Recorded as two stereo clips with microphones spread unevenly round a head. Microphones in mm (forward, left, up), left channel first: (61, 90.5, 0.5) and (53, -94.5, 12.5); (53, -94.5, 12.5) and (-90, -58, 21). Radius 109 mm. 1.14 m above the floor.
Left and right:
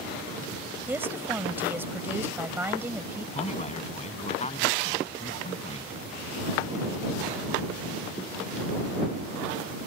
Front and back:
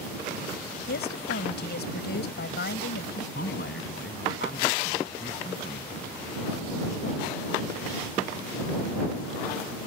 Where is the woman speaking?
15° right.